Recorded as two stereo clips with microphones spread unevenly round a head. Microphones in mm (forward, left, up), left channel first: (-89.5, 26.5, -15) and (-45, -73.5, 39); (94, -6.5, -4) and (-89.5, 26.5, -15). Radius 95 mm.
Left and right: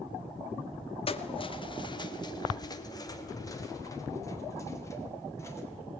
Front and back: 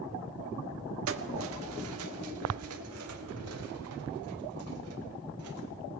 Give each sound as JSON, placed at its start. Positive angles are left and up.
{"t": 1.1, "sound": "keys jangling", "azimuth_deg": 155, "distance_m": 1.7}